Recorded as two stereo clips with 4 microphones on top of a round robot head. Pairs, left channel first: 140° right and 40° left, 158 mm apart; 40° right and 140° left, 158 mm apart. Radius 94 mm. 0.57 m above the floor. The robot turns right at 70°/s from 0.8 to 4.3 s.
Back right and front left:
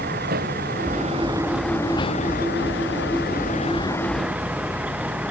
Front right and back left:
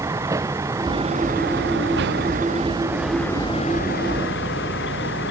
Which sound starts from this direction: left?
A vehicle, at 0.0 s.